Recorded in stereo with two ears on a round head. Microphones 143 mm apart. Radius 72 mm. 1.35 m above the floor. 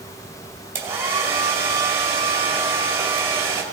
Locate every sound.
0.8 s a hair dryer: 15° right (ahead or behind), 2 m